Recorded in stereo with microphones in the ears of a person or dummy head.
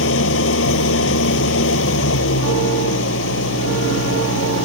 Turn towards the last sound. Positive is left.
turn(degrees=85)